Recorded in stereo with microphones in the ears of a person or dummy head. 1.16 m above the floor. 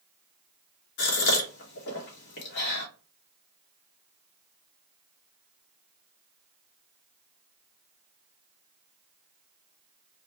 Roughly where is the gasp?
Left.